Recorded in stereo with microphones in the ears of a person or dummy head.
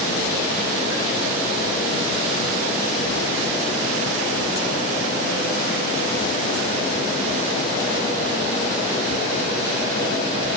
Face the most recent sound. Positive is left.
No sound to turn to.